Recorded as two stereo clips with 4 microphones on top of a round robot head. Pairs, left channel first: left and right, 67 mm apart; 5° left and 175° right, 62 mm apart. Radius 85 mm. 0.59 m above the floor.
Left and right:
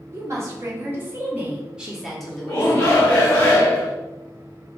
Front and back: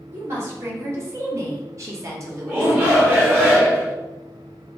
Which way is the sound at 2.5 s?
145° left.